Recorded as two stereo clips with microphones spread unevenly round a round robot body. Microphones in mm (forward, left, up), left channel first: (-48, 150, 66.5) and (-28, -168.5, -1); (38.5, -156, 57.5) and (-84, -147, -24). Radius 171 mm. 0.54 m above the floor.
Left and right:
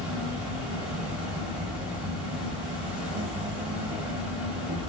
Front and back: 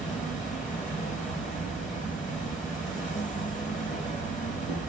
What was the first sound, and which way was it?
An insect, straight ahead.